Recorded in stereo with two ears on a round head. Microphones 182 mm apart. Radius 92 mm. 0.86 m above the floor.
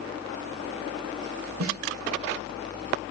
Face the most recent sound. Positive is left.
turn(degrees=-80)